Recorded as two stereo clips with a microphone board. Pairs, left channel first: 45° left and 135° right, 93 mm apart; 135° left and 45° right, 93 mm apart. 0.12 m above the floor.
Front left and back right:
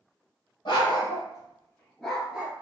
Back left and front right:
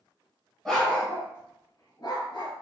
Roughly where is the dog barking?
Ahead left.